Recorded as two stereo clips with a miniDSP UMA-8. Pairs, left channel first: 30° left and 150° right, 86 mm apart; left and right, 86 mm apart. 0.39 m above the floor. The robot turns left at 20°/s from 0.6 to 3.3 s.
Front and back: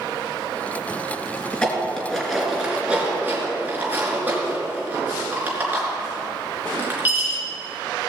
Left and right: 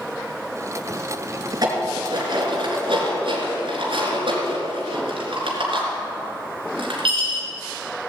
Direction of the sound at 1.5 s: 45° right.